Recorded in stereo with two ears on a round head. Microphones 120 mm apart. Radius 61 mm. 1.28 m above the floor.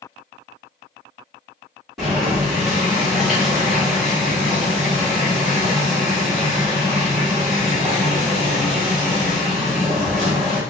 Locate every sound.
2.0 s boiling: centre (ahead or behind), 1.9 m